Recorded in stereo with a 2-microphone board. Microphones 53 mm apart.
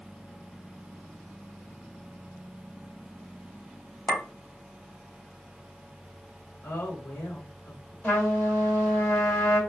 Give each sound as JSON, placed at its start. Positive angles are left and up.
{"t": 4.1, "sound": "a clink", "side_deg": 55, "distance_m": 0.9}
{"t": 6.6, "sound": "a woman speaking", "side_deg": 55, "distance_m": 1.3}
{"t": 8.0, "sound": "a trumpet", "side_deg": 35, "distance_m": 1.6}